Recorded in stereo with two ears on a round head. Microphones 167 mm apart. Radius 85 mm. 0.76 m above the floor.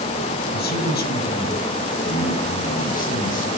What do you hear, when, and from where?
0.5 s a man speaking: 65° left (ahead or behind), 4.5 m; by 3.5 s 50° left (ahead or behind), 7 m